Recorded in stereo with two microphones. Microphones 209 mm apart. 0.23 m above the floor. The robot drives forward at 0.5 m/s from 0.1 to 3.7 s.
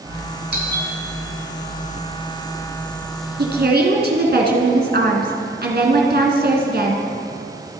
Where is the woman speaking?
50° right (ahead or behind), 2 m.